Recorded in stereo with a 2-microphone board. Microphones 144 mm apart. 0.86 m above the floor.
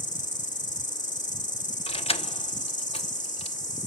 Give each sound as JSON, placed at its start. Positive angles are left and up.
{"t": 0.0, "sound": "an insect", "side_deg": 55, "distance_m": 1.6}
{"t": 1.9, "sound": "keys jangling", "side_deg": 45, "distance_m": 1.0}